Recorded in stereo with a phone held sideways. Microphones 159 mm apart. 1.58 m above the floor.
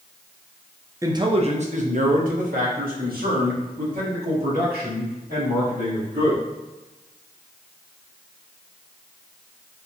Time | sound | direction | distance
1.0 | a man speaking | 20° right (ahead or behind) | 0.5 m